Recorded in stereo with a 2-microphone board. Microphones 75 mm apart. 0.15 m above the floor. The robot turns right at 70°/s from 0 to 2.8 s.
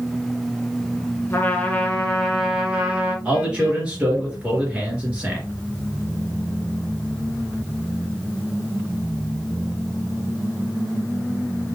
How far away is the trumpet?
About 1.8 m.